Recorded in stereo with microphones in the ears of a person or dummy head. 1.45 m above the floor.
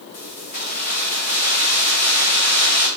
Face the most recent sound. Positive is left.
turn(degrees=40)  # may be behind; listen again after turning